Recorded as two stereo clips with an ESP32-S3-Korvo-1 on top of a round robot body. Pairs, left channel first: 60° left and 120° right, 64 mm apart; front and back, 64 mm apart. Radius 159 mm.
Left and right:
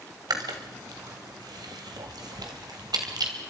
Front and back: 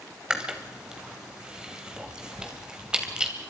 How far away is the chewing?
About 2 m.